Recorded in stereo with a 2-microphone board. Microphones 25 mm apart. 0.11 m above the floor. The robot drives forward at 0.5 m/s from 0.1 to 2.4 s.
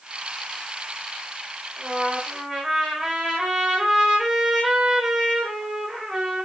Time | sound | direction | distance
1.8 | a trumpet | 20° right (ahead or behind) | 6 m